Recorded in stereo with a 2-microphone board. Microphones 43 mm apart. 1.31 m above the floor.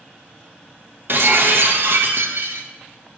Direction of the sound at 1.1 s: 55° right (ahead or behind).